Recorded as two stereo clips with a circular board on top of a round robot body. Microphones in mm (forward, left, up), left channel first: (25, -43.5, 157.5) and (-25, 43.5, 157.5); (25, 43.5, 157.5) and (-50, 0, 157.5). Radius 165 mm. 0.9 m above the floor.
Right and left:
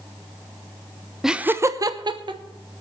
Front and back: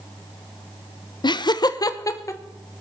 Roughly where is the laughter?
Ahead left.